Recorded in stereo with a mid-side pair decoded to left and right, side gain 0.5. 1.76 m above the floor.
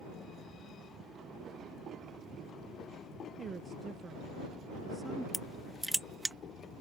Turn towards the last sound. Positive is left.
turn(degrees=0)